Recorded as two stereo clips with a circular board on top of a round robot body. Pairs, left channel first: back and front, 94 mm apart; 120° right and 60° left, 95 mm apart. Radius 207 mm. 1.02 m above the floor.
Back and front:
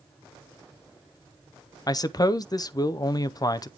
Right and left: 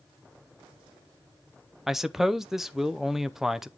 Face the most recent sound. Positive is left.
turn(degrees=145)